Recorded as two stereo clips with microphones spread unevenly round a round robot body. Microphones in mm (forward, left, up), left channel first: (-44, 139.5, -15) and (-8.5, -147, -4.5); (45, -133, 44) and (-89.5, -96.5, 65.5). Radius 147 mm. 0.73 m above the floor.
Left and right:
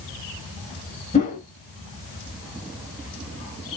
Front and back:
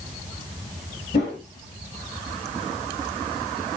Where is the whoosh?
30° left, 4.5 m.